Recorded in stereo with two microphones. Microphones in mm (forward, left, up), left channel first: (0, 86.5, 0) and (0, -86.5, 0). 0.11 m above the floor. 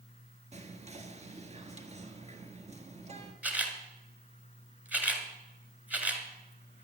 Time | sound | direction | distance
0.5 | whispering | 40° right (ahead or behind) | 1.7 m
3.4 | a camera shutter | 10° right (ahead or behind) | 1.8 m